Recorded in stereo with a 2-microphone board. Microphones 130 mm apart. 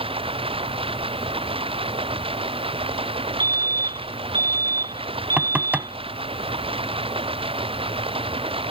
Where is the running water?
45° right (ahead or behind).